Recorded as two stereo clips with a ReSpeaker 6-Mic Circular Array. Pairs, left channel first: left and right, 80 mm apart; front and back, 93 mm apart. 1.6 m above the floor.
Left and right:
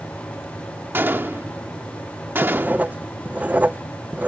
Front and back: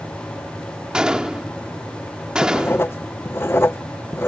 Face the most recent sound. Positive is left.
turn(degrees=-35)